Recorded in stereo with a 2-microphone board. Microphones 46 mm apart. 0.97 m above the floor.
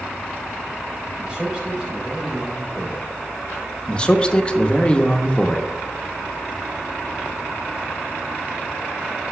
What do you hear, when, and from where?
1.2 s a man speaking: 20° right (ahead or behind), 3.5 m
3.9 s a man speaking: 20° left (ahead or behind), 0.9 m